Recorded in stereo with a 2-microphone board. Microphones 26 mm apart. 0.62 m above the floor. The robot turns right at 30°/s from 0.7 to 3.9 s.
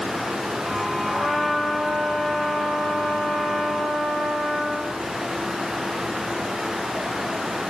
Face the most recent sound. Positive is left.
turn(degrees=95)